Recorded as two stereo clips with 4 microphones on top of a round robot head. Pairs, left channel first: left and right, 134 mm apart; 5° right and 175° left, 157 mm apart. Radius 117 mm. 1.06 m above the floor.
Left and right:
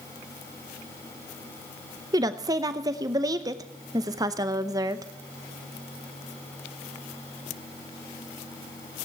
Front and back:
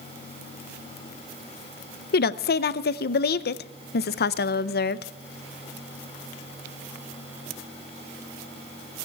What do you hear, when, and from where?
2.1 s a woman speaking: 25° right, 0.6 m